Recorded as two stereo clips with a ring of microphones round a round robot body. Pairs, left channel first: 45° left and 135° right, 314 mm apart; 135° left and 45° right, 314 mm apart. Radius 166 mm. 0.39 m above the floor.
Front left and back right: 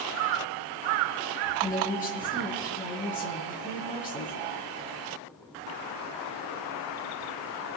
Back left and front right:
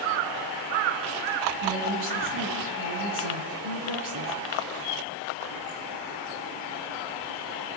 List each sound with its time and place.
1.6 s a woman speaking: 20° right, 6.5 m